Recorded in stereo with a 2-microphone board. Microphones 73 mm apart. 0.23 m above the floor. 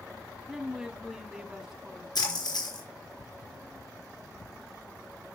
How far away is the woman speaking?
About 1.3 m.